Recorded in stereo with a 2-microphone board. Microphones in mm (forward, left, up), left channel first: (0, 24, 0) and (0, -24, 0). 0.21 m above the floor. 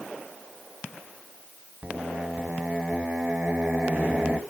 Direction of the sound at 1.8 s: 30° right (ahead or behind).